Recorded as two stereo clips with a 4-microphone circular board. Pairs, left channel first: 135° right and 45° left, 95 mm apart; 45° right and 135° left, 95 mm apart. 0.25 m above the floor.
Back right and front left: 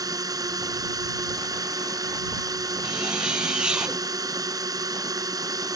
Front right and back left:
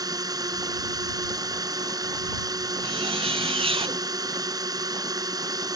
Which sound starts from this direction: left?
A drone, at 0.0 s.